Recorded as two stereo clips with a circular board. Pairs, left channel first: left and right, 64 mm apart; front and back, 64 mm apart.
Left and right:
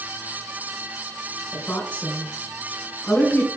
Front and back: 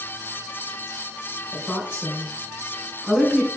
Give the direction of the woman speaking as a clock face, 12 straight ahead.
10 o'clock.